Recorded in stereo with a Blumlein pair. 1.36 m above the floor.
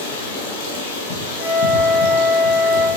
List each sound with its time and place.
0.0 s running water: 55° left, 1.6 m
1.4 s a flute: 10° left, 1.8 m